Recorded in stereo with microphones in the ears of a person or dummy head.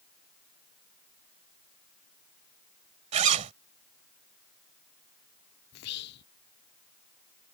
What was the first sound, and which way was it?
A zipper, 35° right (ahead or behind).